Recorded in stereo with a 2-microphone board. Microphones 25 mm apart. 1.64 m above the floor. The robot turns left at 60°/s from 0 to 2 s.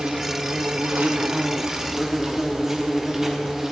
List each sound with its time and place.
0.0 s an insect: 45° right, 0.9 m; by 3.7 s 165° right, 0.9 m